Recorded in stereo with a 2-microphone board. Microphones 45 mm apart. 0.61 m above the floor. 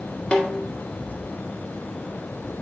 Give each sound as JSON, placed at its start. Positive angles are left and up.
{"t": 0.3, "sound": "a snare drum", "side_deg": 25, "distance_m": 1.5}